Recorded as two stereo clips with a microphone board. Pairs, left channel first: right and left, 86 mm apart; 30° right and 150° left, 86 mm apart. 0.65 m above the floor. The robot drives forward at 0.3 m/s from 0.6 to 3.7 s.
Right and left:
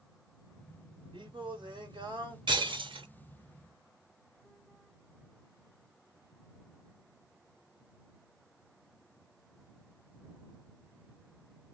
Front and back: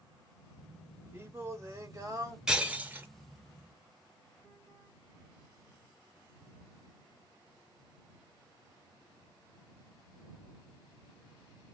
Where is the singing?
95° left, 1.2 m; by 2.4 s 110° left, 1.3 m.